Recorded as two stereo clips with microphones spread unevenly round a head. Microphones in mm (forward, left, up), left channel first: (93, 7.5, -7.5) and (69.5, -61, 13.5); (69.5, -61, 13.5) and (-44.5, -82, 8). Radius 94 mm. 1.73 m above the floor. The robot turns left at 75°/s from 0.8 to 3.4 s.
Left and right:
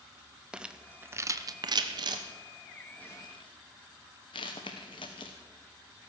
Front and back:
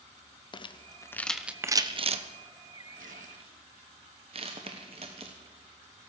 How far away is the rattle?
About 0.9 m.